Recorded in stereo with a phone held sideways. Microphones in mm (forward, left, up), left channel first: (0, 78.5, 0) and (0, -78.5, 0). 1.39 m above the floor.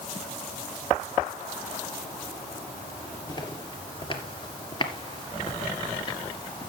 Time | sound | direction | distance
3.3 | footsteps | 30° left (ahead or behind) | 2 m